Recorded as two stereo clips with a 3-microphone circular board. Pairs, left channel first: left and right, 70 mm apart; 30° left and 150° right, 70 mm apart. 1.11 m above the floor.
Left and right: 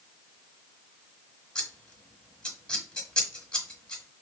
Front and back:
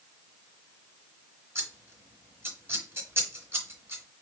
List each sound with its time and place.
1.6 s scissors: 170° left, 1.5 m